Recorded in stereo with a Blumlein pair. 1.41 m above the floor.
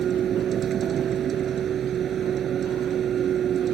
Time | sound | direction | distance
0.0 | a vehicle | 25° right | ?